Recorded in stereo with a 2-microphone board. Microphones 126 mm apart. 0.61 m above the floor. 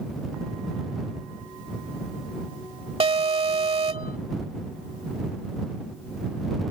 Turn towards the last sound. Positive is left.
turn(degrees=-50)  # may be behind; listen again after turning